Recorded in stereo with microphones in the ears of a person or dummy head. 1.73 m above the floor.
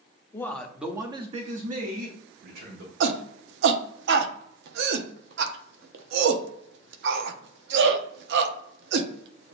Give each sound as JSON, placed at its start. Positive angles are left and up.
{"t": 0.3, "sound": "a man speaking", "side_deg": 20, "distance_m": 0.7}
{"t": 3.0, "sound": "a shout", "side_deg": -70, "distance_m": 0.7}